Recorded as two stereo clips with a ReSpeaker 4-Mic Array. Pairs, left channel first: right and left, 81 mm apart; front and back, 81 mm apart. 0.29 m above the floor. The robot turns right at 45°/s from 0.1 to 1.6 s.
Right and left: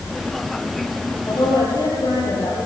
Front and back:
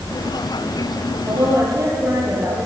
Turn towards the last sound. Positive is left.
turn(degrees=-130)